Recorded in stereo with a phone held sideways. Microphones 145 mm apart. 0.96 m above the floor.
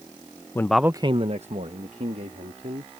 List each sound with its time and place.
0.6 s a man speaking: 20° left (ahead or behind); by 2.9 s 55° right (ahead or behind)